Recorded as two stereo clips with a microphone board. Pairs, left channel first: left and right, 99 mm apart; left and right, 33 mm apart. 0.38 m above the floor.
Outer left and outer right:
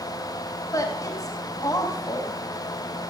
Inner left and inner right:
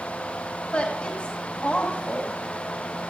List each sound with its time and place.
0.7 s a woman speaking: 35° left (ahead or behind), 2 m